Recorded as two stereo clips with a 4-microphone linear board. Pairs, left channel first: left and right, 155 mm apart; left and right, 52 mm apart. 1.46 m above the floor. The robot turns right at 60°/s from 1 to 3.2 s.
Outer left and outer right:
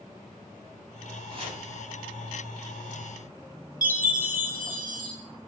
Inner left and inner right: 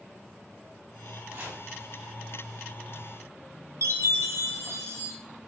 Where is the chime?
70° right (ahead or behind), 2.5 m.